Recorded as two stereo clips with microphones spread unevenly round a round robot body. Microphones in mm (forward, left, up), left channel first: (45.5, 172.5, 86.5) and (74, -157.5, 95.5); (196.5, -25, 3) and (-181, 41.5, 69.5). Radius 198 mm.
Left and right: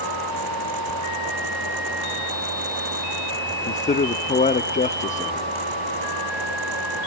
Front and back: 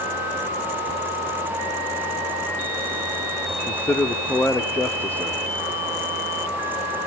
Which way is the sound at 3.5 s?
50° left.